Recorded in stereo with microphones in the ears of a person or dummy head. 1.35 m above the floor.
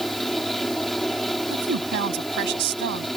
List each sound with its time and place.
0.0 s a fan: centre (ahead or behind)
1.5 s a woman speaking: 65° right (ahead or behind)